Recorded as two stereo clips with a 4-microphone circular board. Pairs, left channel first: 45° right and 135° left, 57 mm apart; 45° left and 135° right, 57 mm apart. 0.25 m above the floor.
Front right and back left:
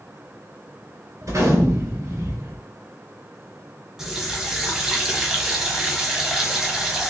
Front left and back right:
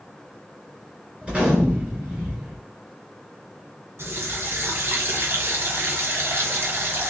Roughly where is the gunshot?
Behind left.